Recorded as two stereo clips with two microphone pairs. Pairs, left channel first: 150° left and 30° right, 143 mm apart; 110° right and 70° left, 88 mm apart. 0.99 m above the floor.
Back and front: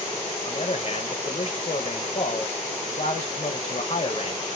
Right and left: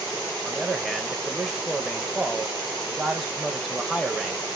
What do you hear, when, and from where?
0.5 s a man speaking: 155° left, 0.9 m